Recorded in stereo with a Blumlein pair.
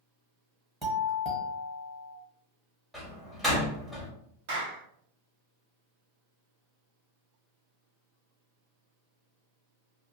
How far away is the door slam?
About 1.3 m.